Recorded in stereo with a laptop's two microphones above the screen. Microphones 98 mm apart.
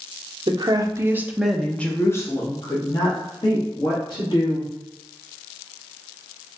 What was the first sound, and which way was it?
A woman speaking, 50° right (ahead or behind).